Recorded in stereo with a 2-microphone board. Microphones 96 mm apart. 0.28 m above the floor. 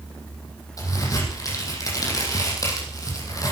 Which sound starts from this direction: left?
A crack, at 0.8 s.